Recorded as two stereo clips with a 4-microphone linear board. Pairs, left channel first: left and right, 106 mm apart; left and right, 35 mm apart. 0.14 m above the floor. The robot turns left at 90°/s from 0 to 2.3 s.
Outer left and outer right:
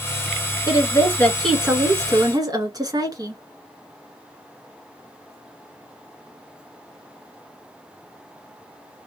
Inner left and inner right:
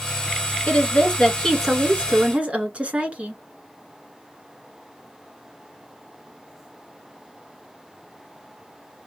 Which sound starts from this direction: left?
A woman speaking, at 0.7 s.